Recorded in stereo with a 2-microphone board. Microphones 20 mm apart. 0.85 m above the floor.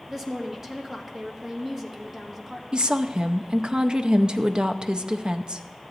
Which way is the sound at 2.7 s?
40° right (ahead or behind).